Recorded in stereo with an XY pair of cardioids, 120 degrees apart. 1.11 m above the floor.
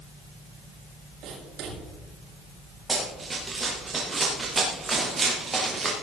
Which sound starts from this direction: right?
Writing, at 1.2 s.